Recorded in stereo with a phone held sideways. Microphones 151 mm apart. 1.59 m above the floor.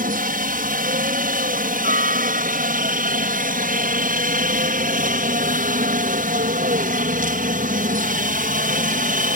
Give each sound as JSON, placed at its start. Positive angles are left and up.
{"t": 0.0, "sound": "a helicopter", "side_deg": -65}